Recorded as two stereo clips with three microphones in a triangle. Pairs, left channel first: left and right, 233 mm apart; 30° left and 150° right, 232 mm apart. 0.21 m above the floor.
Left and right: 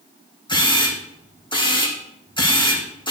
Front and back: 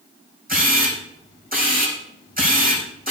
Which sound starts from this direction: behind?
A camera shutter, at 0.5 s.